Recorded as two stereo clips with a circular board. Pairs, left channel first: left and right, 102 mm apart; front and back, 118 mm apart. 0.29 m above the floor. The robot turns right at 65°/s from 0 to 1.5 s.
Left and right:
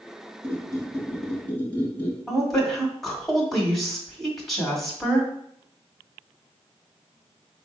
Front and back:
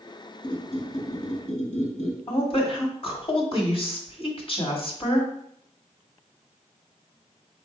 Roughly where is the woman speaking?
Ahead.